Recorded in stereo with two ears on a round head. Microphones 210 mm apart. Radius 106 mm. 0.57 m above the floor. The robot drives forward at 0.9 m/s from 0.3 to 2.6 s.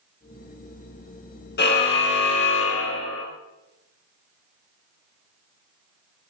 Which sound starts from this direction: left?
A car horn, at 1.6 s.